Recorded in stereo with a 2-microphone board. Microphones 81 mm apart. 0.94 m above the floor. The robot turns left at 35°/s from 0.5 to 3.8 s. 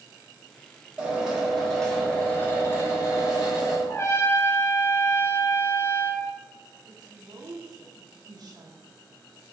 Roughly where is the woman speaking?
Right.